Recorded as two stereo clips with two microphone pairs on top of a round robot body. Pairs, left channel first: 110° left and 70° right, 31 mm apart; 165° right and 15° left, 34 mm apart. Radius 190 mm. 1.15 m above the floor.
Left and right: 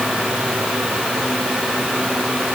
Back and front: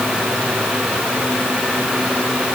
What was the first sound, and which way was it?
Only background noise.